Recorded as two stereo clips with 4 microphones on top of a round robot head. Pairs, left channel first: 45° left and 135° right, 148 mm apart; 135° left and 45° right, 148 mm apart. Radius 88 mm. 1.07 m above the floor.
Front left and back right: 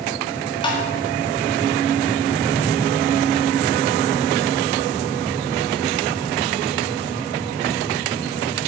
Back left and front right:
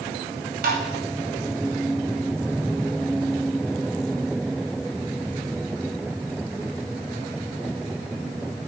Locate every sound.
0.6 s tapping: 15° right, 1.9 m